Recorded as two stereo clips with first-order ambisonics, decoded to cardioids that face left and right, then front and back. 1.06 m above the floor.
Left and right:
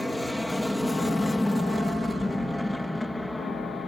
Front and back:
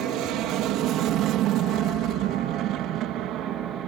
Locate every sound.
0.0 s an aircraft: 175° left; by 3.9 s 165° left